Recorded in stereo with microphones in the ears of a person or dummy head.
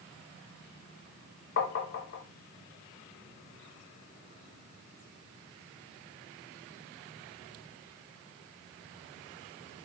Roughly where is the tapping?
Left.